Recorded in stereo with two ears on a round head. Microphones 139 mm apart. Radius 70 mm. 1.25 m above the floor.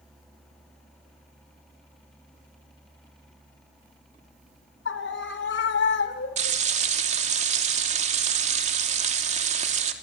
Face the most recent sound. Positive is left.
turn(degrees=-50)  # may be behind; listen again after turning